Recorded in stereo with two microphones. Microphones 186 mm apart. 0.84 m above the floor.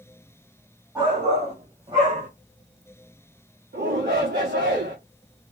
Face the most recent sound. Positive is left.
turn(degrees=-60)  # may be behind; listen again after turning